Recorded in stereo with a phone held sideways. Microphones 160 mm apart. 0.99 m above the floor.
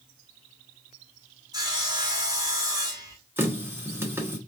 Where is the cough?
No cough in this recording.